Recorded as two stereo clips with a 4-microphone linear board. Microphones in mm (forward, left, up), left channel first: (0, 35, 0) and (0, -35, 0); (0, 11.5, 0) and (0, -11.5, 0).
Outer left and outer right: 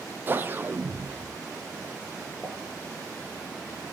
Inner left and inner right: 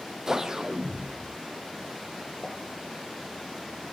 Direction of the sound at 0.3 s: 30° right (ahead or behind).